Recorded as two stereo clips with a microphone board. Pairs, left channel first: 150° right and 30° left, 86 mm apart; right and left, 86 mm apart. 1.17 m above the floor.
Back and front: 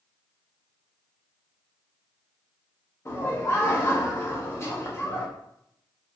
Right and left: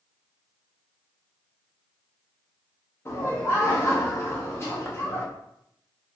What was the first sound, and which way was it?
Laughter, 120° right.